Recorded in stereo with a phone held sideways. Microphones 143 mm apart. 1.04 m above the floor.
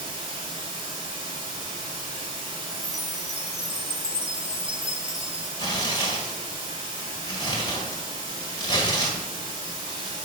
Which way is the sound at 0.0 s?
40° right (ahead or behind).